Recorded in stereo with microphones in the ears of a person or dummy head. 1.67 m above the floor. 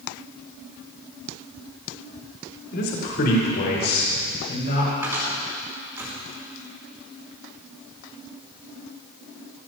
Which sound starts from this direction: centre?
A cupboard door, at 5.0 s.